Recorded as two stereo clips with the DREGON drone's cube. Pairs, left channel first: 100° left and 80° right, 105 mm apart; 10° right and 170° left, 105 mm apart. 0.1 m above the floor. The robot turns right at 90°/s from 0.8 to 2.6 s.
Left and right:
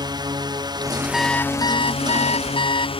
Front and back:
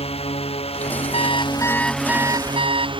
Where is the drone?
30° right; by 3.0 s 130° left.